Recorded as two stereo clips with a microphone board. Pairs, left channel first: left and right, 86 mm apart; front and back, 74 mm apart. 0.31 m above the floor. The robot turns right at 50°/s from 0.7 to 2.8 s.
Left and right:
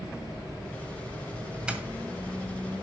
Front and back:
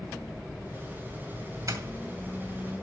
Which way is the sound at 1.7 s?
165° right.